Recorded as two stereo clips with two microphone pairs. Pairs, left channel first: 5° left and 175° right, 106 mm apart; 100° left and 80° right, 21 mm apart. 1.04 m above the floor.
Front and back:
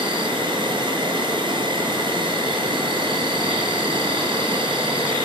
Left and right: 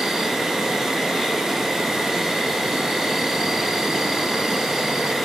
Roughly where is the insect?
Behind right.